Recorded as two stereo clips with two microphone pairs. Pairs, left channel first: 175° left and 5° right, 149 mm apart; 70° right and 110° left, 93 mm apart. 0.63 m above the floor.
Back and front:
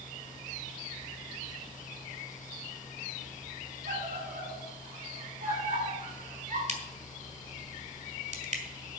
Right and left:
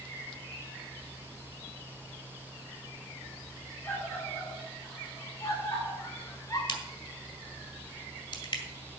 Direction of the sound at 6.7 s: 40° right.